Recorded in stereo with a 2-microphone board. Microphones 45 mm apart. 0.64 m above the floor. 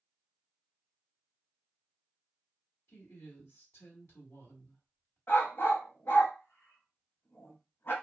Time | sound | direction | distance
2.9 | a woman speaking | 65° left (ahead or behind) | 1.4 m
5.3 | a dog barking | 55° left (ahead or behind) | 0.7 m